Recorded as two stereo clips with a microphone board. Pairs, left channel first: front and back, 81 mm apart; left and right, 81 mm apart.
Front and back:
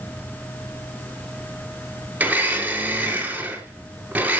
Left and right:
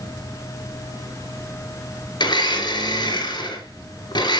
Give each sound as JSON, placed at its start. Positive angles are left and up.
{"t": 2.2, "sound": "a blender", "azimuth_deg": 110, "distance_m": 5.0}